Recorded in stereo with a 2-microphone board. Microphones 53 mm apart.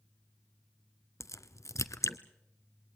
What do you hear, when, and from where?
1.2 s a crack: 85° left, 0.9 m